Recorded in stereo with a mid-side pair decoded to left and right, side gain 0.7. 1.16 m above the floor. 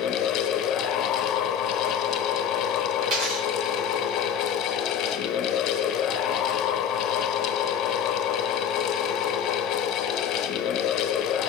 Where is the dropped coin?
70° right, 4.5 m.